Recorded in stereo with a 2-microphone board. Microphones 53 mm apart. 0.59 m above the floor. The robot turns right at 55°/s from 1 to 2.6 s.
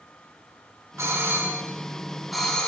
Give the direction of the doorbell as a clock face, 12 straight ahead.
2 o'clock.